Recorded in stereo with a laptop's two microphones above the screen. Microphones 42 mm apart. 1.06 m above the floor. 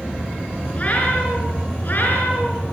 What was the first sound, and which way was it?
A cat meowing, 35° left (ahead or behind).